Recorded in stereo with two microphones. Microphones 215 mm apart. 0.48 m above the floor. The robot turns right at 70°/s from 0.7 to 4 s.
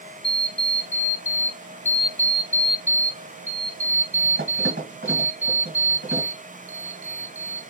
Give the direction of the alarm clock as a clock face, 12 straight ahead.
10 o'clock.